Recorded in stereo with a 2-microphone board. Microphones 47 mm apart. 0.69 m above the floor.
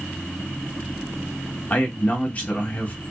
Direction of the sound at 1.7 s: 35° left (ahead or behind).